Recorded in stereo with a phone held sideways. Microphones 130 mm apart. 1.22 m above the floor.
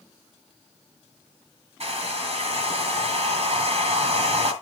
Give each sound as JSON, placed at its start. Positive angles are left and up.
{"t": 1.8, "sound": "a hair dryer", "side_deg": -60, "distance_m": 2.0}